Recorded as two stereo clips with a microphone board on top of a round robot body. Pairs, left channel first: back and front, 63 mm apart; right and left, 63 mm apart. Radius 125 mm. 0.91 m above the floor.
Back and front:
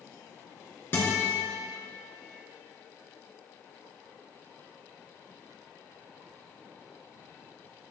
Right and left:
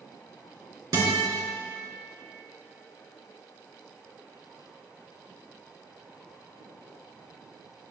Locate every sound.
0.9 s a guitar: 120° left, 3 m